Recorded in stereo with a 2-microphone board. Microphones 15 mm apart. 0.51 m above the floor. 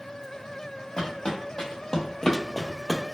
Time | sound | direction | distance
1.0 | footsteps | 55° left (ahead or behind) | 0.9 m